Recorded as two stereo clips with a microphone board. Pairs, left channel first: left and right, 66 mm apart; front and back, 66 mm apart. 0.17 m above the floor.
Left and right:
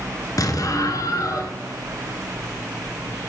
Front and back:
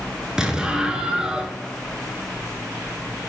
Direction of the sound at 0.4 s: 100° left.